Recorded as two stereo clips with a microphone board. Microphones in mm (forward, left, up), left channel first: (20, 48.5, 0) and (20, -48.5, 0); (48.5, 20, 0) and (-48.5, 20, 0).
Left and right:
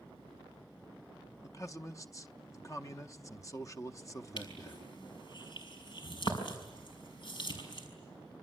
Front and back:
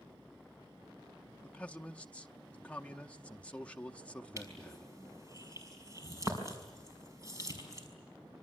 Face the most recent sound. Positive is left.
turn(degrees=125)